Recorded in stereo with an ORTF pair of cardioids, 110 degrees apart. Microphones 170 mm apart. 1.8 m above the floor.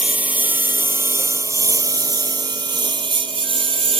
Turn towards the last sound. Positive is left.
turn(degrees=-35)